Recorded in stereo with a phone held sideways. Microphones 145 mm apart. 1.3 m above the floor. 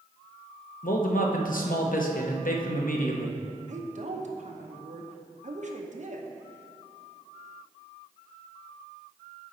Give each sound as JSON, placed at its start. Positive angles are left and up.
{"t": 0.8, "sound": "a man speaking", "side_deg": 70, "distance_m": 0.8}
{"t": 3.7, "sound": "a woman speaking", "side_deg": -55, "distance_m": 0.8}